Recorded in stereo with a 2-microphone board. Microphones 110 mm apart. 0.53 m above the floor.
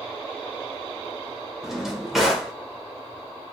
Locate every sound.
1.6 s a drawer: 5° right (ahead or behind), 0.8 m